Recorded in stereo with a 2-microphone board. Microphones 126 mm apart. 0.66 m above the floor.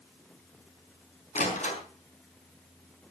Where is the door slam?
70° left (ahead or behind), 5 m.